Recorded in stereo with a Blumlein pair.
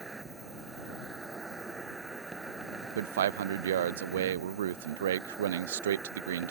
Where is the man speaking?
60° right.